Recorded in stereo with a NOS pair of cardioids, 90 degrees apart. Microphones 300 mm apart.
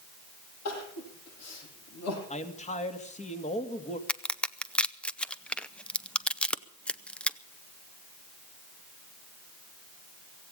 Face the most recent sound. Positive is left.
turn(degrees=5)